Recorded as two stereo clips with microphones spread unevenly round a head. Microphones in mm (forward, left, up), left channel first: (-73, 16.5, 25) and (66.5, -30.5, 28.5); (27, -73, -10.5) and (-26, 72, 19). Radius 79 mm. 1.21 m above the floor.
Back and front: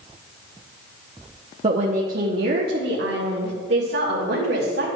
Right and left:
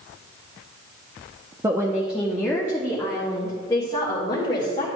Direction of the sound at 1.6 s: 35° left.